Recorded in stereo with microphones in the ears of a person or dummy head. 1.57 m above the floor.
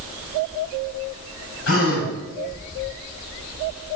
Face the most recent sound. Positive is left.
turn(degrees=70)  # may be behind; listen again after turning